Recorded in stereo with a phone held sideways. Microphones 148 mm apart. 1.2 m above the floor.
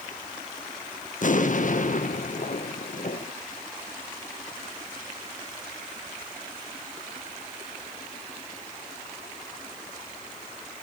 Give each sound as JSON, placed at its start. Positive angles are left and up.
{"t": 1.2, "sound": "an explosion", "side_deg": 60, "distance_m": 1.2}